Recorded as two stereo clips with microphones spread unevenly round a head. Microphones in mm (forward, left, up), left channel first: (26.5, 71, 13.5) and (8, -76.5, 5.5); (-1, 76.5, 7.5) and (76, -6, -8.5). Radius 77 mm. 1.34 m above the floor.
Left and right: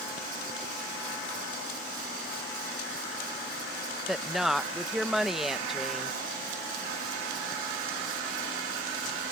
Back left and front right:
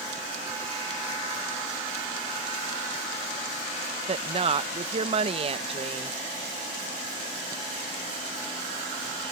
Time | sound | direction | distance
4.1 | a woman speaking | 10° right | ?